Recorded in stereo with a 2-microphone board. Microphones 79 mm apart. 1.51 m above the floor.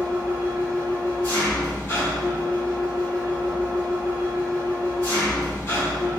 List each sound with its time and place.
0.0 s an engine running: 35° left (ahead or behind), 1.6 m